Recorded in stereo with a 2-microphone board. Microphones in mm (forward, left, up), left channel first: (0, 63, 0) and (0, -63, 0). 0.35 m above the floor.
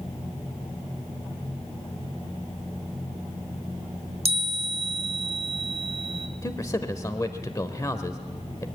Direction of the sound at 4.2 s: 55° right (ahead or behind).